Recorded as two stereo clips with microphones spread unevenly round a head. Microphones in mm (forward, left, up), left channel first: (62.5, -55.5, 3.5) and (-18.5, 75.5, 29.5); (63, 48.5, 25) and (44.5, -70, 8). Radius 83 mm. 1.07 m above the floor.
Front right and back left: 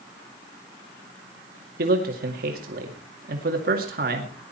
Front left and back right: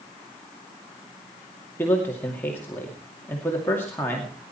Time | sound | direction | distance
1.8 | a man speaking | 160° left | 2.5 m